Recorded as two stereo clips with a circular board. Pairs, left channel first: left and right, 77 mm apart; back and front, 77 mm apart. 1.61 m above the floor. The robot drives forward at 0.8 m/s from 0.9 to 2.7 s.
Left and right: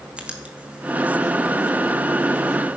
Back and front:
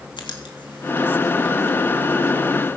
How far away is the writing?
About 2 m.